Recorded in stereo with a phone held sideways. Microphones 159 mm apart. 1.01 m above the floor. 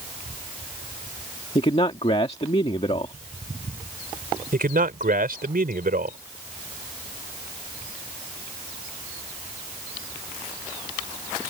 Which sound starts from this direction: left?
A man speaking, at 1.6 s.